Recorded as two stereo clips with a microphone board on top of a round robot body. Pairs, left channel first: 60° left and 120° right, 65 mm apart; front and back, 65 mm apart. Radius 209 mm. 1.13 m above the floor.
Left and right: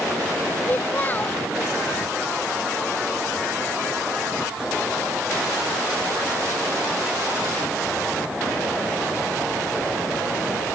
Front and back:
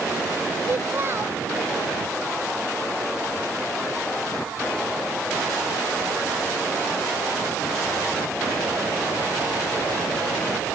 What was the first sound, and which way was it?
A child speaking, 125° left.